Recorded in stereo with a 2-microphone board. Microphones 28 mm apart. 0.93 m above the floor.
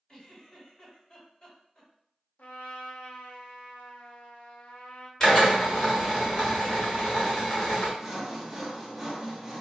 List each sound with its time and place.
0.1 s a giggle: 30° left (ahead or behind), 1.9 m
2.4 s a trumpet: 70° left (ahead or behind), 0.6 m
5.2 s a drill: 25° left (ahead or behind), 1.6 m
8.0 s sawing: 15° right (ahead or behind), 0.9 m